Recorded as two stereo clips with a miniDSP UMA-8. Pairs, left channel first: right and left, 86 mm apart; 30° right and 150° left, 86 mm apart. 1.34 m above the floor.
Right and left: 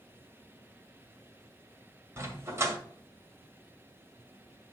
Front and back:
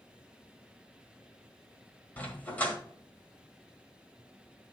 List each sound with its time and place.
2.2 s a dog barking: 40° left, 1.7 m